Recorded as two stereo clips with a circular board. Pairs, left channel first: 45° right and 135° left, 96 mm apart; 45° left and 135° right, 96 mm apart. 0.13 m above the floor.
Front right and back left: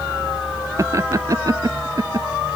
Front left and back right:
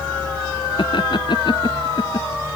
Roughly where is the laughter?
Left.